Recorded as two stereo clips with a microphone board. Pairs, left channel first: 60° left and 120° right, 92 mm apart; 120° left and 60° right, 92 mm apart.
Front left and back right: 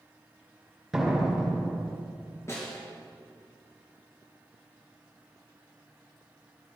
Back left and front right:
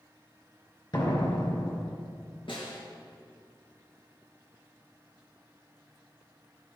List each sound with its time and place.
0.9 s a door slam: 155° left, 2.5 m
2.5 s a snare drum: 115° left, 3 m